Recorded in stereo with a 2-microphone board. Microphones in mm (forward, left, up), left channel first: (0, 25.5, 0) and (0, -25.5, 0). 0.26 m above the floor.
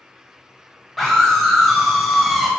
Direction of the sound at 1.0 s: Centre (ahead or behind).